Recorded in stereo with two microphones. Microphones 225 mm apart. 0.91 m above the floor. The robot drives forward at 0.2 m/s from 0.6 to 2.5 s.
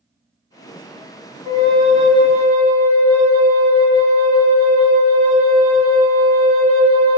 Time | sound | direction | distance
1.4 | a flute | 25° right (ahead or behind) | 0.9 m